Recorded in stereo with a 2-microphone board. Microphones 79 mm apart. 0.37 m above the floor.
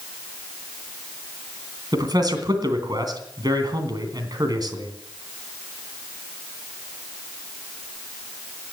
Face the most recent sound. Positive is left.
turn(degrees=-55)  # may be behind; listen again after turning